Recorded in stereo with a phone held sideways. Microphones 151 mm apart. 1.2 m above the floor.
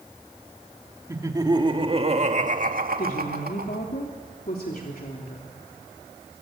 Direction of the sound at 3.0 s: 75° left (ahead or behind).